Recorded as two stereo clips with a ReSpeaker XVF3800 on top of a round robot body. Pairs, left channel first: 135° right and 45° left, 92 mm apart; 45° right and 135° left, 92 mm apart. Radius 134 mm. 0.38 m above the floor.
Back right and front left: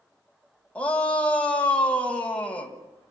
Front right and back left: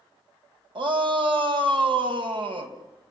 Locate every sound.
0.8 s a shout: 150° left, 3 m